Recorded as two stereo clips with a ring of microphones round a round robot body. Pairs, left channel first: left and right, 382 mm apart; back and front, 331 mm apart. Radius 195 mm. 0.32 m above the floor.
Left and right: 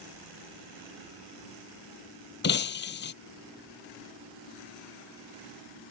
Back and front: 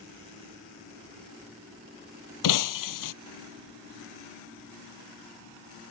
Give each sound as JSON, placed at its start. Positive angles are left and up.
{"t": 2.4, "sound": "breaking glass", "azimuth_deg": 155}